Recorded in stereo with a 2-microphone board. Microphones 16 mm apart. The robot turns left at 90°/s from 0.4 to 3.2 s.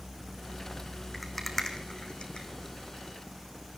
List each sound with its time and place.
1.1 s a rattle: 15° right (ahead or behind), 3 m; by 2.5 s 75° left (ahead or behind), 3 m